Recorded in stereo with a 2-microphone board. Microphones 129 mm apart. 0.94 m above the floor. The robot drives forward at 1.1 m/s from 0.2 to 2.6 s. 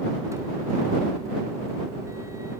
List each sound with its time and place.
Only background noise.